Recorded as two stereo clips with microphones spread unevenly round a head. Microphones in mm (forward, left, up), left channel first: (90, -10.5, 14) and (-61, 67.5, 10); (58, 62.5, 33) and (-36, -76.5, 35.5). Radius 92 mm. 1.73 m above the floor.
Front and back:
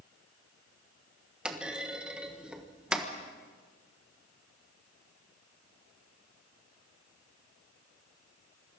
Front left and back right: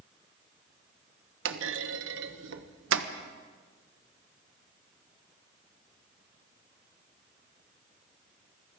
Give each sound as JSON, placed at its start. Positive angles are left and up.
{"t": 1.4, "sound": "a clunk", "azimuth_deg": -120, "distance_m": 1.2}